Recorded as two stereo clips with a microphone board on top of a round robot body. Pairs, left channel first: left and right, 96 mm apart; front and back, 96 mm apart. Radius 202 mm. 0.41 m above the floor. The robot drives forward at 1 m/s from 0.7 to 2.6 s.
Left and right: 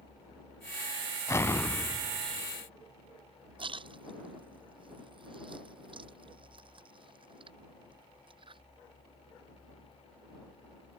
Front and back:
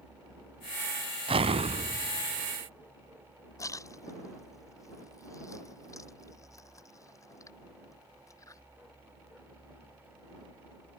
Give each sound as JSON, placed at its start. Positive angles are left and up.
{"t": 1.3, "sound": "an explosion", "azimuth_deg": 150}
{"t": 3.6, "sound": "a splash", "azimuth_deg": -60}